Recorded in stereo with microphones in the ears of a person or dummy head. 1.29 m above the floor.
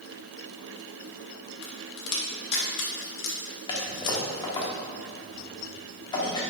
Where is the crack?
65° left (ahead or behind), 1.6 m.